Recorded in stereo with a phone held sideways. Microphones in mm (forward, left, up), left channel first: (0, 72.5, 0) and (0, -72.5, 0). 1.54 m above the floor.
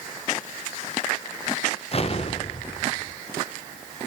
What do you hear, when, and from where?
1.9 s an explosion: 45° left (ahead or behind), 0.7 m